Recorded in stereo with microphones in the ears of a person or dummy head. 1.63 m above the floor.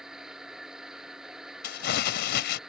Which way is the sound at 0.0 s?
Centre (ahead or behind).